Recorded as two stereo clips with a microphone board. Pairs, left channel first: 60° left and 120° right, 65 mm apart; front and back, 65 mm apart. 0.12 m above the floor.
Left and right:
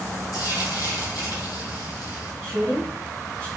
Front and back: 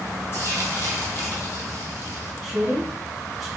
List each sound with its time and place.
0.3 s frying: 50° left, 0.9 m
2.4 s a woman speaking: 90° left, 1.3 m